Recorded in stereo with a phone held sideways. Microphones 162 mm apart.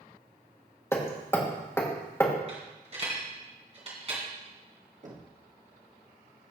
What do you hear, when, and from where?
0.9 s hammering: 15° left (ahead or behind), 1.7 m
2.5 s a dropped coin: 40° right (ahead or behind), 3 m
5.0 s knocking: 50° right (ahead or behind), 1.3 m